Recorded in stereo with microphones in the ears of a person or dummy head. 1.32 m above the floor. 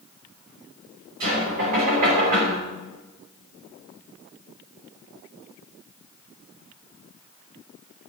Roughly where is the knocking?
Right.